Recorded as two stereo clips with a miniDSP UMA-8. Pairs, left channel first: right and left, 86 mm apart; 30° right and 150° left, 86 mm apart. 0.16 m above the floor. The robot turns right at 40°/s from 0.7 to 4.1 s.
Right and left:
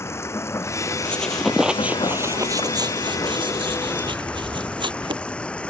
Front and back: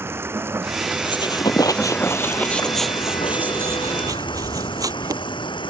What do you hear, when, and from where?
0.0 s running water: 150° right; by 5.7 s 10° right
1.1 s a squeak: 15° right; by 5.2 s 105° left